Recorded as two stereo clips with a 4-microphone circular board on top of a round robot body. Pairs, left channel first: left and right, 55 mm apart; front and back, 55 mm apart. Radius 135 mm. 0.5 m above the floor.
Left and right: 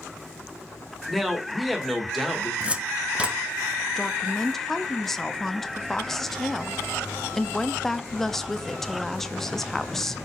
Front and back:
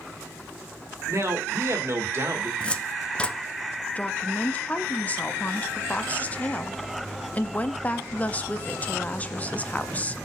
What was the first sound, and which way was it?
A man speaking, straight behind.